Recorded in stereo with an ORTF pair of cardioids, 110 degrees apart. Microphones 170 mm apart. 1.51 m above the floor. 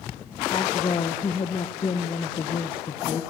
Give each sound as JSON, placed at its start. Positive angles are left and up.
{"t": 0.5, "sound": "a woman speaking", "azimuth_deg": 30, "distance_m": 1.9}